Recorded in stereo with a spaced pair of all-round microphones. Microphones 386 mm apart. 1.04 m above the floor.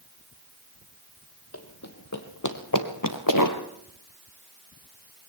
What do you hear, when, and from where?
1.5 s running footsteps: 35° left (ahead or behind), 2 m; by 3.6 s 50° left (ahead or behind), 1.7 m